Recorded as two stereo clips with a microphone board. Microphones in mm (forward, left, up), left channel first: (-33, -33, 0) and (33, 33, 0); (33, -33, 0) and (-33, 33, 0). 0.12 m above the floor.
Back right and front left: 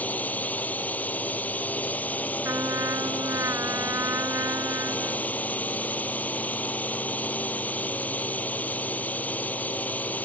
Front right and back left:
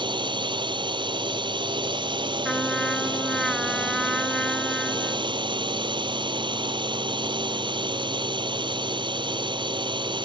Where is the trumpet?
40° left.